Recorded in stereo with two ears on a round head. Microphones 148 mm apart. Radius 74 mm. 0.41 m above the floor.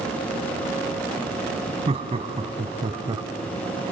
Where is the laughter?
35° right (ahead or behind), 2.5 m; by 3.2 s 25° right (ahead or behind), 1.5 m.